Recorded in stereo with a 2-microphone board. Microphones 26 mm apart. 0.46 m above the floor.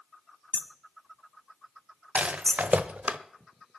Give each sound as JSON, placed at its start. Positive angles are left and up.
{"t": 0.5, "sound": "hammering", "side_deg": 10, "distance_m": 1.0}
{"t": 2.1, "sound": "a rattle", "side_deg": -65, "distance_m": 0.9}